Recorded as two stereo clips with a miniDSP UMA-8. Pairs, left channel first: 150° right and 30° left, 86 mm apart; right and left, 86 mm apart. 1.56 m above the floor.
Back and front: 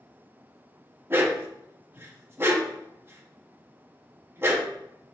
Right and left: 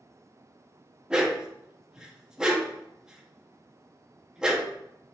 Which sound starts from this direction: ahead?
A dog barking, at 1.1 s.